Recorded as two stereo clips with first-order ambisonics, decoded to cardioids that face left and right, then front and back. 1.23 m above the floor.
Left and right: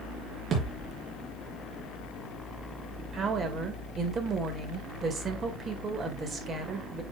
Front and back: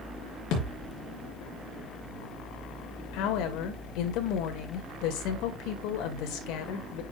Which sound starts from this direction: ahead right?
A thud, at 0.5 s.